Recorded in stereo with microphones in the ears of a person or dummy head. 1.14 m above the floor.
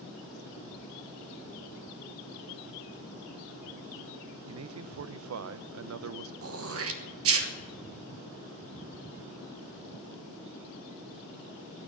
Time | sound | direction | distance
4.5 | a man speaking | 70° right (ahead or behind) | 0.6 m
6.4 | throat clearing | 65° right (ahead or behind) | 1.4 m